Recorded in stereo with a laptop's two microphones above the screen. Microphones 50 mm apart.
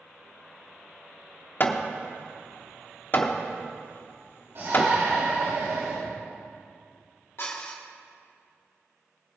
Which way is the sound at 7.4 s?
55° left (ahead or behind).